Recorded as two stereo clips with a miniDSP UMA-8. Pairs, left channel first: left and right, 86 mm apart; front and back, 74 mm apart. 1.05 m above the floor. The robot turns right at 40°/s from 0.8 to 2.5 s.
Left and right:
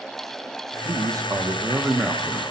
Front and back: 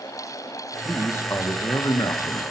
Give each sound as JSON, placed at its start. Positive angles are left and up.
{"t": 0.8, "sound": "a man speaking", "azimuth_deg": -60, "distance_m": 1.0}